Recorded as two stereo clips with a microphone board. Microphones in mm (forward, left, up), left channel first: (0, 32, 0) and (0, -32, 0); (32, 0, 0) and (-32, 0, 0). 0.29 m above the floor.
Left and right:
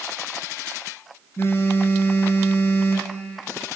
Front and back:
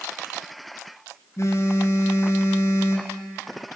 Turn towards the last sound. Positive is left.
turn(degrees=40)